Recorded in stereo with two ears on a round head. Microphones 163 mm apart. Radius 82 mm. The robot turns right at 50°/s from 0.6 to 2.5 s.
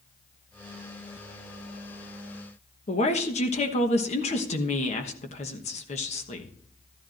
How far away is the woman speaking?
About 1.1 m.